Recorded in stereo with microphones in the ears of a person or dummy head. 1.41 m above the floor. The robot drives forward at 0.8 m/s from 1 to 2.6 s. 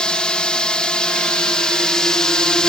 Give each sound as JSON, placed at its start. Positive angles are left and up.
{"t": 0.0, "sound": "a drone", "side_deg": 5}